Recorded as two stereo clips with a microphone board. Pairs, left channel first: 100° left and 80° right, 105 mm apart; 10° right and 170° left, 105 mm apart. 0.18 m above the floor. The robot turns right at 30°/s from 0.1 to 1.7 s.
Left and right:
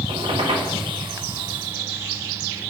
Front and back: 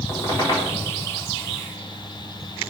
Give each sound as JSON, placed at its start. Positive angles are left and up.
{"t": 0.1, "sound": "a squeak", "azimuth_deg": -75, "distance_m": 4.0}